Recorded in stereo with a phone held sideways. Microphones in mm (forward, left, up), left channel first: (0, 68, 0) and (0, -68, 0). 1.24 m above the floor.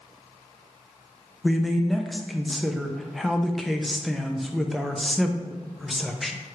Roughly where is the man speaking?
Centre.